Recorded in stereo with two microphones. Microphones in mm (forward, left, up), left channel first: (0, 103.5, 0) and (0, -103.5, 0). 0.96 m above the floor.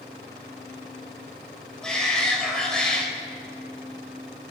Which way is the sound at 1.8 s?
5° left (ahead or behind).